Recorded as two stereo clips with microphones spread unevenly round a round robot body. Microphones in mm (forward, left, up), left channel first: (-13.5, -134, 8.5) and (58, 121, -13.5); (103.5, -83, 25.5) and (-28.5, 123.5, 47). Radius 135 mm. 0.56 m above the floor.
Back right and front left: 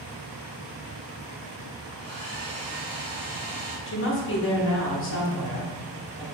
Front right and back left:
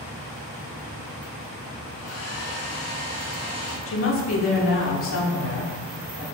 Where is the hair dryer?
30° right, 2.0 m.